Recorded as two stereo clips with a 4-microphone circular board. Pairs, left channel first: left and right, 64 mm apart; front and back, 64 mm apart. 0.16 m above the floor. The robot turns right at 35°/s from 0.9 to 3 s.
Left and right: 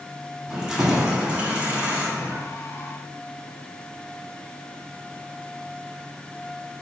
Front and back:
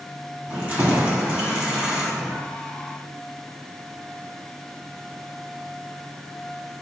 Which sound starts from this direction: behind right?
Keys jangling, at 0.5 s.